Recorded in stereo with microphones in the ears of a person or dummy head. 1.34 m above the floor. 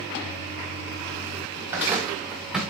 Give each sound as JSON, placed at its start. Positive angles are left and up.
{"t": 1.6, "sound": "footsteps", "side_deg": -15, "distance_m": 9.0}